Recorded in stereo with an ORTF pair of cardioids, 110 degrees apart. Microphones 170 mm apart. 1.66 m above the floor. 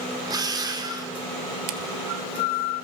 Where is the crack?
65° right, 1.9 m.